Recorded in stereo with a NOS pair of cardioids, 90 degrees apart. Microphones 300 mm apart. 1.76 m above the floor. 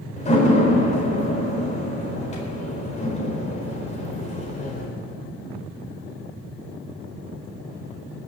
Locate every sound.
0.2 s a door slam: 25° left, 4.5 m